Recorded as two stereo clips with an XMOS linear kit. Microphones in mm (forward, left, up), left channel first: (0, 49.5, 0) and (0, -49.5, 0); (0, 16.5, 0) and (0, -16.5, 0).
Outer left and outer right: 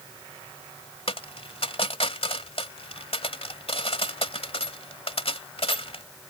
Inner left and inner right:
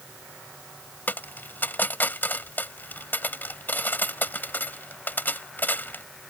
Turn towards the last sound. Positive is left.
turn(degrees=75)  # may be behind; listen again after turning